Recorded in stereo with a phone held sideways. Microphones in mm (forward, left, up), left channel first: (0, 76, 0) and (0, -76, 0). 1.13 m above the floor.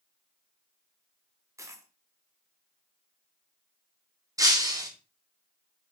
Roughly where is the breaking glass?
Right.